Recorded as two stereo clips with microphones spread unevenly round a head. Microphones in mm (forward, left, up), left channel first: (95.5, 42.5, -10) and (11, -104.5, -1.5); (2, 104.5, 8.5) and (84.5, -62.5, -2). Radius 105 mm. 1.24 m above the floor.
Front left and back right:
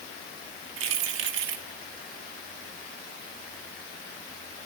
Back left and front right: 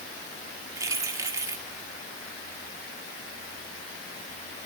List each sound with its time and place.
0.8 s keys jangling: 140° right, 2 m